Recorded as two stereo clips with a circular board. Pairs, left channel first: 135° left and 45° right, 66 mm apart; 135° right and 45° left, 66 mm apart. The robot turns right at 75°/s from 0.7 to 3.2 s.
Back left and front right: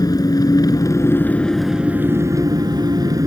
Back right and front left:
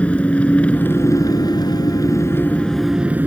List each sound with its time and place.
0.0 s an engine running: 155° left; by 3.3 s 20° right